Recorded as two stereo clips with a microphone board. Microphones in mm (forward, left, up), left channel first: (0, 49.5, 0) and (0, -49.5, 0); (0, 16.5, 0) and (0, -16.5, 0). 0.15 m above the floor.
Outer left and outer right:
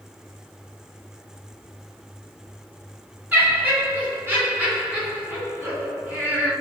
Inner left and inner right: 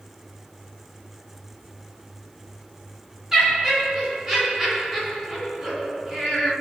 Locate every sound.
3.3 s laughter: 20° right (ahead or behind), 1.9 m